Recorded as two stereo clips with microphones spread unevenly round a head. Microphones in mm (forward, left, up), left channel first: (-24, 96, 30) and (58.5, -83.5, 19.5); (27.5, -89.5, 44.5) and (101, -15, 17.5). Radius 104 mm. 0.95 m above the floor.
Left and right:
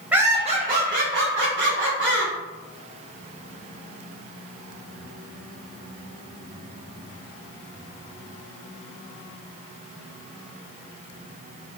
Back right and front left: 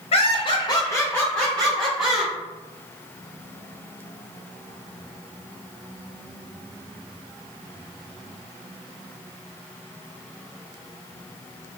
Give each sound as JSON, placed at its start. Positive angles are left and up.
{"t": 0.1, "sound": "laughter", "azimuth_deg": -145, "distance_m": 0.5}